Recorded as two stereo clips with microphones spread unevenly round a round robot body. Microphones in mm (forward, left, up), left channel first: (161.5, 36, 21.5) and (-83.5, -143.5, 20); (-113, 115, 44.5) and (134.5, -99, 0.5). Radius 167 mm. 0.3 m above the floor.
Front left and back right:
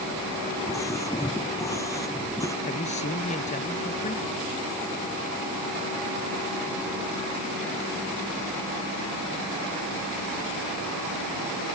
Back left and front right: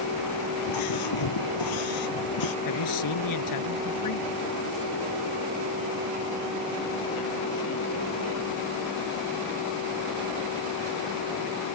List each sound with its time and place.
0.6 s a scream: 115° left
2.6 s a man speaking: 105° left